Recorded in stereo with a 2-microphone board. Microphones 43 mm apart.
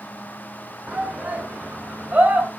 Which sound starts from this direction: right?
A shout, at 0.9 s.